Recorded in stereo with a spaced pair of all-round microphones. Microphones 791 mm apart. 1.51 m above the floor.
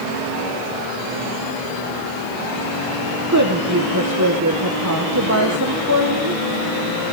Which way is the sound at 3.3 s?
20° right (ahead or behind).